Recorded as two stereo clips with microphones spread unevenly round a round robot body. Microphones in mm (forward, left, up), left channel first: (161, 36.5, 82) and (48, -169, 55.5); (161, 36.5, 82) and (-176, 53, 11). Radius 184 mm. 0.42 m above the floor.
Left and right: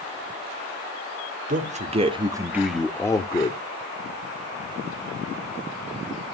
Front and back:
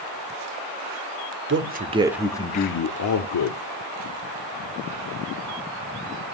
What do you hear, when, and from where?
1.5 s a man speaking: 155° right, 1.3 m; by 3.6 s 10° right, 1.4 m